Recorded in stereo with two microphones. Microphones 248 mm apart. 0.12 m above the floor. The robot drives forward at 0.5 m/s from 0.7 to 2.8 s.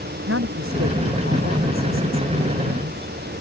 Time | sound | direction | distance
0.3 | a woman speaking | 60° right (ahead or behind) | ?